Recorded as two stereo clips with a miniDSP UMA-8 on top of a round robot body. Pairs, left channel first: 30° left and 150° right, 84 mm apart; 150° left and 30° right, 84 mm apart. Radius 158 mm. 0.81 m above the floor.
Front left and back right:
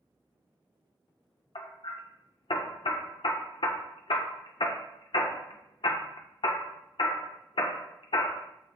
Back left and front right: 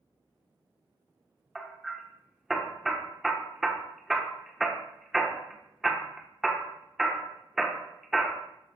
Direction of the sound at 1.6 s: 55° left.